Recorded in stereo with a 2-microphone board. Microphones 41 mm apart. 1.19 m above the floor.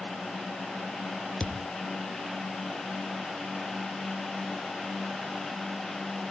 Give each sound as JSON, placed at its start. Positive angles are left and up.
{"t": 1.4, "sound": "a thud", "side_deg": 20, "distance_m": 0.9}